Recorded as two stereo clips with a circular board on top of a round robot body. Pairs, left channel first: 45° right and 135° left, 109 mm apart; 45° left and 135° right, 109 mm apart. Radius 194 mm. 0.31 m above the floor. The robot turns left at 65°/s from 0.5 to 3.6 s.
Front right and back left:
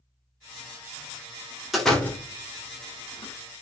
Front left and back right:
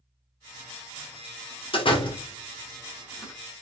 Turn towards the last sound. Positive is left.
turn(degrees=-75)